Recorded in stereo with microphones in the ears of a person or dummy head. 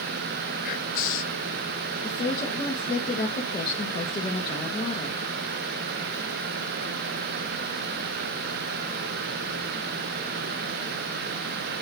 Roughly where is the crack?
I don't hear a crack.